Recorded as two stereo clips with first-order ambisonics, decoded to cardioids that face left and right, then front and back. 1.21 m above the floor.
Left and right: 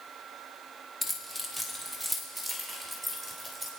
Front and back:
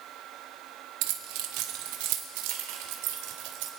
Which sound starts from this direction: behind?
Keys jangling, at 1.0 s.